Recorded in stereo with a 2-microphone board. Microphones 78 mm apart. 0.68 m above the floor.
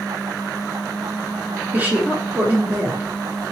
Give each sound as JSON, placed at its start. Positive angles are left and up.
{"t": 1.7, "sound": "a woman speaking", "side_deg": -25, "distance_m": 1.9}